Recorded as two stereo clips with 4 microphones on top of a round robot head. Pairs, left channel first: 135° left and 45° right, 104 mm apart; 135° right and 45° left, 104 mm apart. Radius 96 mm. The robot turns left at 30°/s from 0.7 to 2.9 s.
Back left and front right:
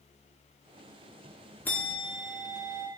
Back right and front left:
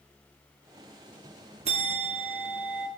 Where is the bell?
60° left, 1.2 m; by 2.9 s 25° left, 1.2 m.